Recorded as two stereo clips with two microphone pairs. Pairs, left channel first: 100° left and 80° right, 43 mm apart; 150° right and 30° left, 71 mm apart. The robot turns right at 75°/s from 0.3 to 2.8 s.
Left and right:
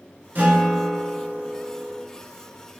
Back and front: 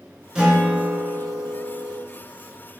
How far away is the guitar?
About 1.2 m.